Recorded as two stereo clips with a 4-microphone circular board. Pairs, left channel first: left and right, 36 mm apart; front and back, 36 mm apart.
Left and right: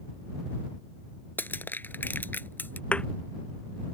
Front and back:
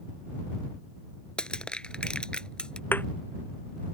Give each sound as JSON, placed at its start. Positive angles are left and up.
{"t": 1.4, "sound": "crushing", "azimuth_deg": 65}
{"t": 2.9, "sound": "a thud", "azimuth_deg": 30}